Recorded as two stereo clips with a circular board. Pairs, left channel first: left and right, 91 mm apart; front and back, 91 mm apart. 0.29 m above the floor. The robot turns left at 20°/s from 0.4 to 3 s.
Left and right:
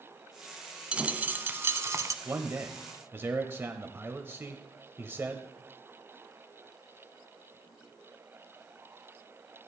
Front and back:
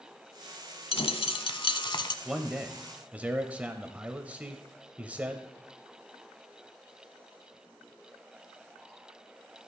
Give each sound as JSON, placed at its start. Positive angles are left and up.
{"t": 0.9, "sound": "a dropped coin", "azimuth_deg": -10, "distance_m": 0.7}
{"t": 2.2, "sound": "a man speaking", "azimuth_deg": -110, "distance_m": 1.0}